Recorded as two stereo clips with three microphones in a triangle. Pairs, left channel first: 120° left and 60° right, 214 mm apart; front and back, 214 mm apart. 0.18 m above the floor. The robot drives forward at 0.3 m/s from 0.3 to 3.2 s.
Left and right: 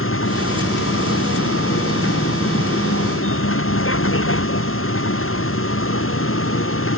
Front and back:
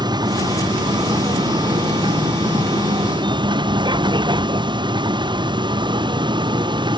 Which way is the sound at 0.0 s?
110° left.